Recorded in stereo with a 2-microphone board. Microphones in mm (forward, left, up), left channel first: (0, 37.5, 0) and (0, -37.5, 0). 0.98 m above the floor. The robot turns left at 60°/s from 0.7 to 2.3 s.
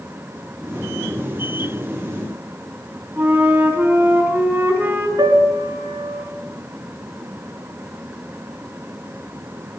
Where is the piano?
75° right (ahead or behind), 3.5 m.